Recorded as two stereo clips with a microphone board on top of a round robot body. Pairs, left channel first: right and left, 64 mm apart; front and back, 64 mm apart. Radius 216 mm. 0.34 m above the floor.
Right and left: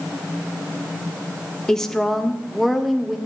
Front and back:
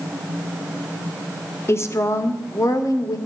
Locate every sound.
1.7 s a woman speaking: 10° right, 1.7 m; by 3.2 s 5° left, 2 m